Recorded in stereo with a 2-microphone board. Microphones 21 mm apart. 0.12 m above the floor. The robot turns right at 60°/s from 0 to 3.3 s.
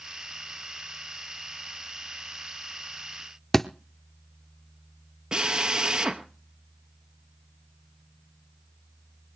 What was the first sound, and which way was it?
A thud, 15° left (ahead or behind).